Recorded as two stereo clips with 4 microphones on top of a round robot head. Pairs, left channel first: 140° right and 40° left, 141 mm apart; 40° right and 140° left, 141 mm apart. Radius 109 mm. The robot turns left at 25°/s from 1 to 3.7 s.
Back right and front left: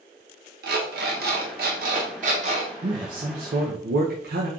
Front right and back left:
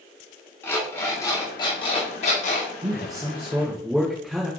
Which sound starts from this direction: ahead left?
An alarm clock, at 0.6 s.